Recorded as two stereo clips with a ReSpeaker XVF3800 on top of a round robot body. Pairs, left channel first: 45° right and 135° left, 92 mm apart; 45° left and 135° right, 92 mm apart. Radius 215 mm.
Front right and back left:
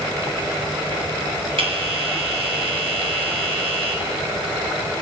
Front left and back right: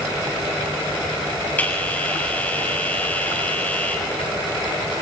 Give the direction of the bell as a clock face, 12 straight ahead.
8 o'clock.